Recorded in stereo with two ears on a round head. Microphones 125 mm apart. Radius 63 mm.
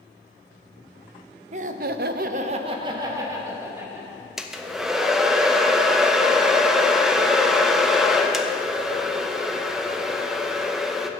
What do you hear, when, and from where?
1.5 s laughter: 55° right (ahead or behind), 0.7 m; by 4.3 s 15° right (ahead or behind), 2 m
4.4 s a hair dryer: 5° right (ahead or behind), 0.7 m